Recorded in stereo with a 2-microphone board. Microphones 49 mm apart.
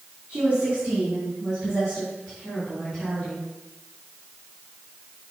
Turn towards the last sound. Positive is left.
turn(degrees=5)  # may be behind; listen again after turning